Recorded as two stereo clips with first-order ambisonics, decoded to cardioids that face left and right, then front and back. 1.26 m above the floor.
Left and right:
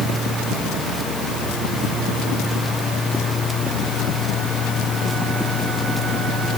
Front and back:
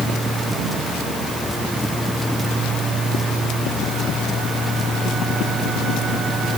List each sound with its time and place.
Only background noise.